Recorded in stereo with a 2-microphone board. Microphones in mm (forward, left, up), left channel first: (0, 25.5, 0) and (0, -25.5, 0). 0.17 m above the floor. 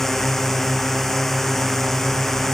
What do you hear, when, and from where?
0.0 s a drone: 10° left (ahead or behind)